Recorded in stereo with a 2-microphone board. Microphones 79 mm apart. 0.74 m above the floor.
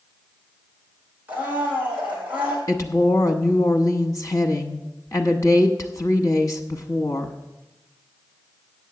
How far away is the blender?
About 3.5 m.